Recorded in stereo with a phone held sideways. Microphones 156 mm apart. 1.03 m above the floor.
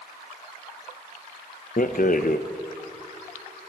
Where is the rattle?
60° left (ahead or behind), 0.5 m.